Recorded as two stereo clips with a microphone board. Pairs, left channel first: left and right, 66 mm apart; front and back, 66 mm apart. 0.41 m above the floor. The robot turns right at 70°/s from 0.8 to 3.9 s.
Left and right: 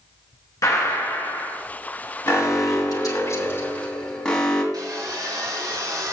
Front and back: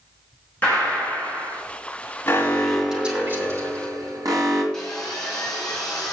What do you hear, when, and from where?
0.6 s a gunshot: 65° left, 4.5 m; by 1.6 s 120° left, 4.5 m
2.3 s an alarm: 50° left, 2.5 m; by 4.6 s 165° left, 2.5 m
4.7 s sawing: 80° right, 4 m